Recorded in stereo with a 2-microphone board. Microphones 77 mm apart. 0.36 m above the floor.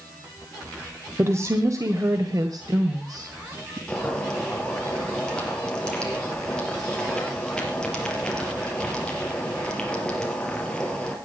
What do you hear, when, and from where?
1.2 s a woman speaking: 35° right (ahead or behind), 1.4 m; by 3.8 s 50° right (ahead or behind), 2 m
3.9 s boiling: 10° left (ahead or behind), 4 m